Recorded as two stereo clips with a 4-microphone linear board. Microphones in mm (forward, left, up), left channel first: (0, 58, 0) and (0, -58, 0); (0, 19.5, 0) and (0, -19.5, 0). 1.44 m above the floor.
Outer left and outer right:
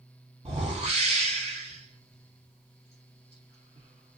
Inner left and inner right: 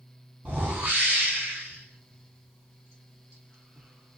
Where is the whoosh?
60° right (ahead or behind), 1.9 m.